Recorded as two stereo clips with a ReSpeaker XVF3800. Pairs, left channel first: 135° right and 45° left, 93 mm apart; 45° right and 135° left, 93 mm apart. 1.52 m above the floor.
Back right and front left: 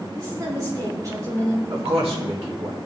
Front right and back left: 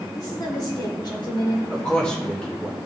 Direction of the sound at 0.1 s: Straight ahead.